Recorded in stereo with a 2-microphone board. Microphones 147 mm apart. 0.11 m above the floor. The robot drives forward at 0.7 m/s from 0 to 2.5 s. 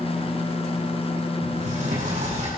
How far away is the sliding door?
About 8 m.